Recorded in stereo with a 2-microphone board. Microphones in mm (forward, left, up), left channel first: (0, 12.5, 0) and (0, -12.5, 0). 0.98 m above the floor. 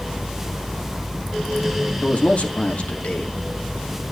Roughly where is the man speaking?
Left.